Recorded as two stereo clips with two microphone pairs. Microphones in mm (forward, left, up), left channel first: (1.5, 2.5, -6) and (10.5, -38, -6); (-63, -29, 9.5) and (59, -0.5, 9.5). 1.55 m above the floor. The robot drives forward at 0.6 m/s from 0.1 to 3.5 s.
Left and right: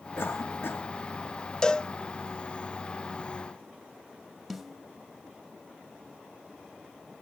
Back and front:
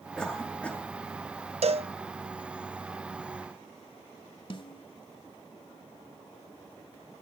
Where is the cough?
110° left, 4 m; by 0.8 s 115° left, 4.5 m.